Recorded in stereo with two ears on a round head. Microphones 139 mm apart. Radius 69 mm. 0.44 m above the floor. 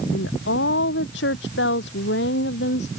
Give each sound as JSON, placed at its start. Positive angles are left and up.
{"t": 0.1, "sound": "a woman speaking", "side_deg": 85}